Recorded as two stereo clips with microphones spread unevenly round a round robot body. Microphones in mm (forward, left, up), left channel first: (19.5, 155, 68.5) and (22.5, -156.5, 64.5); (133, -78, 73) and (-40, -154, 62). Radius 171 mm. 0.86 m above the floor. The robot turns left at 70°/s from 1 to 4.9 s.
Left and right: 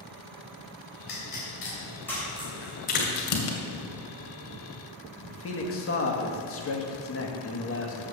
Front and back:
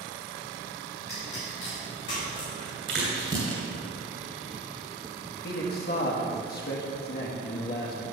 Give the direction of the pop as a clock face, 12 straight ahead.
9 o'clock.